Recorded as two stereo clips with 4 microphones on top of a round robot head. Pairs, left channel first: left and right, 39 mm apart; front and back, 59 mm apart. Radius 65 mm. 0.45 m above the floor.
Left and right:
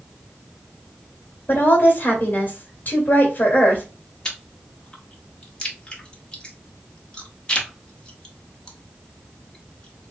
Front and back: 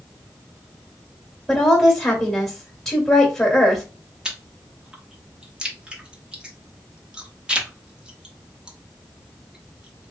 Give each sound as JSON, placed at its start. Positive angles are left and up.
{"t": 1.5, "sound": "a woman speaking", "azimuth_deg": 75, "distance_m": 1.8}
{"t": 4.2, "sound": "chewing", "azimuth_deg": 125, "distance_m": 1.4}